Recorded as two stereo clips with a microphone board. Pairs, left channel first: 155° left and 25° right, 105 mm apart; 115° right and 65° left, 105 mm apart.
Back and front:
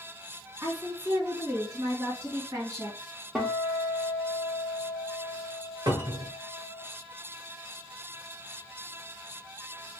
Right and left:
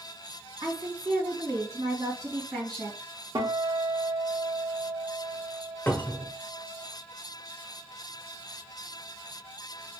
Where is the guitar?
55° left, 1.2 m.